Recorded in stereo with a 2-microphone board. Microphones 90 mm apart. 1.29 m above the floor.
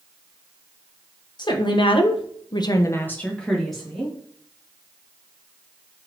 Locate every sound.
1.4 s a woman speaking: 55° left (ahead or behind), 0.9 m; by 4.2 s 5° right (ahead or behind), 1.3 m